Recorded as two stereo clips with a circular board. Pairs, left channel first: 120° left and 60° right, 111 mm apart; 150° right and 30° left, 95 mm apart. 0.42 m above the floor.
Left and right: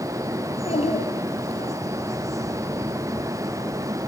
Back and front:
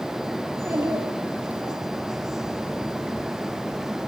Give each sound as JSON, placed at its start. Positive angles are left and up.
{"t": 0.5, "sound": "a child speaking", "azimuth_deg": 95, "distance_m": 7.5}